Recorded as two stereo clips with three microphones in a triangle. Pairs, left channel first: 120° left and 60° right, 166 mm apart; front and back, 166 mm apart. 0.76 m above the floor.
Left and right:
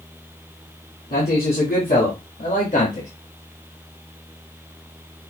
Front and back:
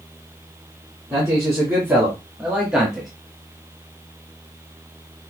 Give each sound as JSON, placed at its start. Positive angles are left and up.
{"t": 1.1, "sound": "a man speaking", "azimuth_deg": 110, "distance_m": 2.5}